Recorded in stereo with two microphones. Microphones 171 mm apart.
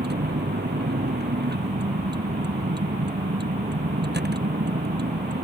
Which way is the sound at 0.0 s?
75° right (ahead or behind).